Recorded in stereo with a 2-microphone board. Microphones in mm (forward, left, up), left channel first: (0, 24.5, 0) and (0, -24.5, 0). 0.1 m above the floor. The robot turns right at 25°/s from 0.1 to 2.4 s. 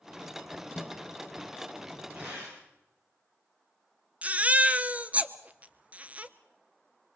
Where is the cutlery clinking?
I don't hear cutlery clinking.